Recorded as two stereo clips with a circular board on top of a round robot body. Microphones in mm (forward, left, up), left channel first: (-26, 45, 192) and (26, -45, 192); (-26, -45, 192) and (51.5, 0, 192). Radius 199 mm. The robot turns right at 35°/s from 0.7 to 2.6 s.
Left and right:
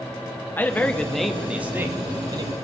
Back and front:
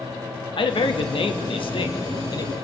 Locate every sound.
0.6 s a man speaking: 170° right, 1.2 m; by 2.5 s 105° right, 1.2 m